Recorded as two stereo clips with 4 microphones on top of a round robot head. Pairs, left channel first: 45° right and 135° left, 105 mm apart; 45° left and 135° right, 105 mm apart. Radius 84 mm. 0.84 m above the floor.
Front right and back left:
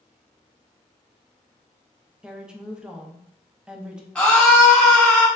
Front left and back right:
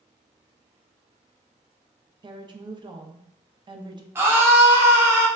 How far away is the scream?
About 0.7 m.